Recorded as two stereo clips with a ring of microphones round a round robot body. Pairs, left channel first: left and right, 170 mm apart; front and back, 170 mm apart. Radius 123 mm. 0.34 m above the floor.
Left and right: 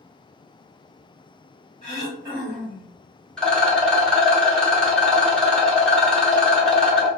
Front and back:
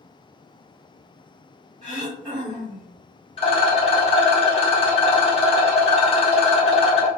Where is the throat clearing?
135° right, 1.5 m.